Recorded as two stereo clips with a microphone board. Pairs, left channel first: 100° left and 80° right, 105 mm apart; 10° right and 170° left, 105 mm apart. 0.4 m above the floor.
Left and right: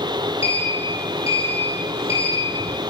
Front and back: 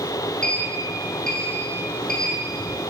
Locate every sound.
0.4 s a sliding door: 70° left, 4.5 m